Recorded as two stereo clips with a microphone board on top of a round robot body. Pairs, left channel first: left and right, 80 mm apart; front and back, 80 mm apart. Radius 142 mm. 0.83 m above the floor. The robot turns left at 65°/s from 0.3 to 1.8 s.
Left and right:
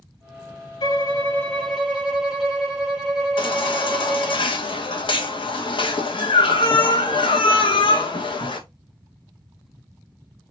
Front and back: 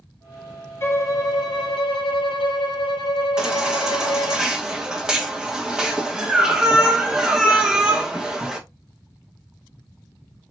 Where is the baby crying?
100° left, 1.2 m.